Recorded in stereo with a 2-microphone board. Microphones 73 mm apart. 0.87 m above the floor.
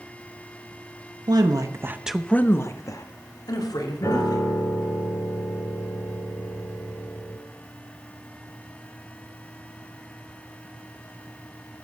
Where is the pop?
No pop in this recording.